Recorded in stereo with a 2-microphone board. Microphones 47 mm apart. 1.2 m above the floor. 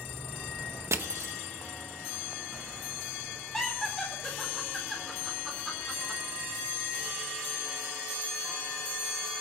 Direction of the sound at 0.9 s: 75° right (ahead or behind).